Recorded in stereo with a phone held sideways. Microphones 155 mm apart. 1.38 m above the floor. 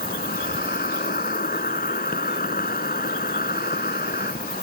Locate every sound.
0.0 s an insect: 65° left (ahead or behind)